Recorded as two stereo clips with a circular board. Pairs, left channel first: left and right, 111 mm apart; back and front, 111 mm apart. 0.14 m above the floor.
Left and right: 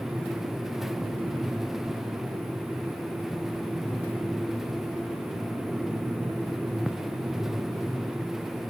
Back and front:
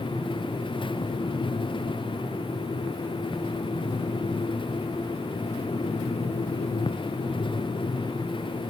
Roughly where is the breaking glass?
I don't hear breaking glass.